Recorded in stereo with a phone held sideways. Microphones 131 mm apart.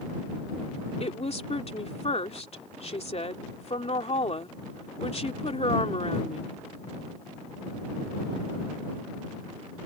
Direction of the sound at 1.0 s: 50° left (ahead or behind).